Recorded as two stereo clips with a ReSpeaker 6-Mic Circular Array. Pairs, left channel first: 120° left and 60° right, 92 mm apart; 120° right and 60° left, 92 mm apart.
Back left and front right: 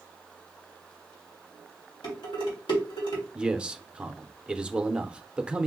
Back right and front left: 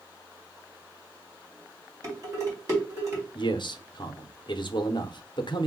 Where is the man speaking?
140° right, 0.6 m.